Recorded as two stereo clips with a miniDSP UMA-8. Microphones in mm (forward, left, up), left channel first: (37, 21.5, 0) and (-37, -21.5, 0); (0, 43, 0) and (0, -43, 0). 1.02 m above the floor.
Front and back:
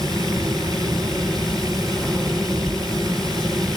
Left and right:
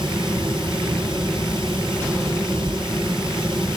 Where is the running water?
110° right, 6.5 m.